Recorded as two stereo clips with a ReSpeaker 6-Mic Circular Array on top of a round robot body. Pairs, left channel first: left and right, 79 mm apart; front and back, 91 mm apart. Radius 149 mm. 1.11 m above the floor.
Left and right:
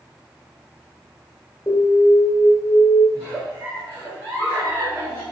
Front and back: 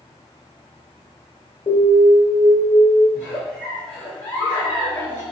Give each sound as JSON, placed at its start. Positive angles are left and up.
{"t": 1.7, "sound": "an alarm", "azimuth_deg": 25, "distance_m": 1.7}
{"t": 3.1, "sound": "a giggle", "azimuth_deg": -10, "distance_m": 1.4}